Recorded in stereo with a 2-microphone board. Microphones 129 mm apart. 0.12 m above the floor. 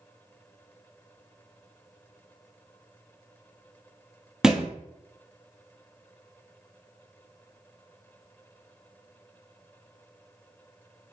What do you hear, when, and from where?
4.4 s a thud: 5° right (ahead or behind), 0.8 m